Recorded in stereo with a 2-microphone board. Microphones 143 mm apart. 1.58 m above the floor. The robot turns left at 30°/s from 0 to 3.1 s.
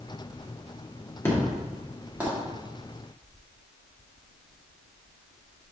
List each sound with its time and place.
1.2 s an explosion: 15° left (ahead or behind), 2.5 m; by 2.3 s 15° right (ahead or behind), 2.5 m